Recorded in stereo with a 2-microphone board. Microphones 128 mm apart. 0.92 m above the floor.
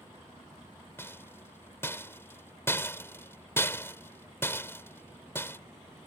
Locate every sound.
1.0 s a rattle: 20° left (ahead or behind)